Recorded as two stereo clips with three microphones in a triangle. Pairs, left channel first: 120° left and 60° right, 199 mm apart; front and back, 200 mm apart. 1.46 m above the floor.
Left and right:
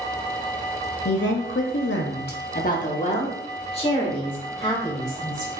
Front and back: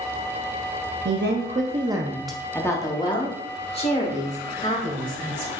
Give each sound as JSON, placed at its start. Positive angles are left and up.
{"t": 1.1, "sound": "a woman speaking", "azimuth_deg": 155, "distance_m": 0.6}